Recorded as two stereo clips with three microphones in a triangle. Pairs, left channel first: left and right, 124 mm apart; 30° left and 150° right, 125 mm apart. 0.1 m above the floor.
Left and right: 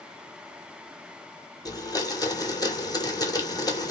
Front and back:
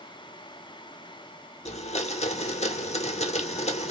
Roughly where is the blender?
Ahead left.